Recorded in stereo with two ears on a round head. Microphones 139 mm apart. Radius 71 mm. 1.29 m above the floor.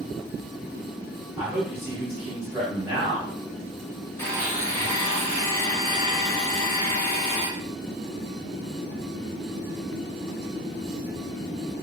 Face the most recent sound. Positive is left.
turn(degrees=15)  # may be behind; listen again after turning